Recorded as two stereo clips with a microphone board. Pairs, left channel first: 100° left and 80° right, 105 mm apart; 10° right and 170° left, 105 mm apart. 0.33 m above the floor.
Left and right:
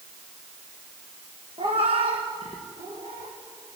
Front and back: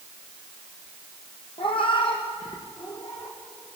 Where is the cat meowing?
45° right, 2.5 m; by 3.4 s 60° right, 5.5 m.